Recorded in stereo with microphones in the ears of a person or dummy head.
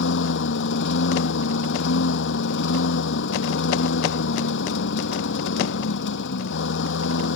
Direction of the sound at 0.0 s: 65° left (ahead or behind).